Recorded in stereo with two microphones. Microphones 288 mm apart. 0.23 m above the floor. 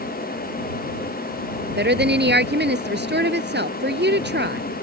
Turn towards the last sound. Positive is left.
turn(degrees=-40)  # may be behind; listen again after turning